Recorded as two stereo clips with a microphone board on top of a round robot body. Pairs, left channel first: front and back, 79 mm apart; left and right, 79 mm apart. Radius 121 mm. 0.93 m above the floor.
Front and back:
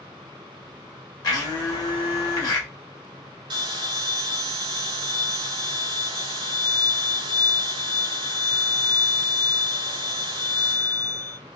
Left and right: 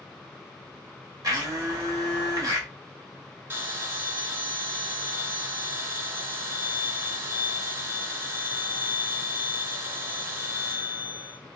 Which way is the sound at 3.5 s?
155° right.